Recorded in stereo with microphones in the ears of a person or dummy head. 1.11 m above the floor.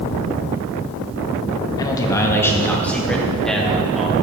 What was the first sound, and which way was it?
A man speaking, 20° left (ahead or behind).